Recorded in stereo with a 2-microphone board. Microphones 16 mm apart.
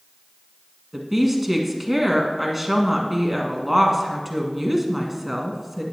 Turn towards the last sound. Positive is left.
turn(degrees=-15)  # may be behind; listen again after turning